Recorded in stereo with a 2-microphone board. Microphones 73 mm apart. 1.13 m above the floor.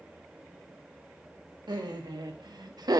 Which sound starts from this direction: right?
Laughter, at 1.7 s.